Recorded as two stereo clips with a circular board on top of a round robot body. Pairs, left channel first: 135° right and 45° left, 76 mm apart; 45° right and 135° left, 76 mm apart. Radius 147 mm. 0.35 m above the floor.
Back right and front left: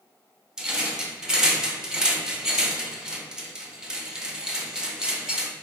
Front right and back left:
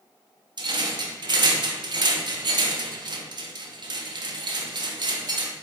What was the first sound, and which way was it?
A rattle, 125° left.